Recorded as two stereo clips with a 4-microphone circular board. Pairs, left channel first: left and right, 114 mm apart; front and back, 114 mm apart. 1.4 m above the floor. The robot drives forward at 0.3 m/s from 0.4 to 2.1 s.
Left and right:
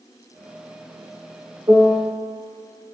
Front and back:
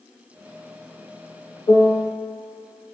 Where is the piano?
45° right, 2 m.